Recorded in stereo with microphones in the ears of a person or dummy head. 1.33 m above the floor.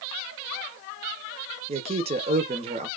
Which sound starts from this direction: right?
A man speaking, at 1.7 s.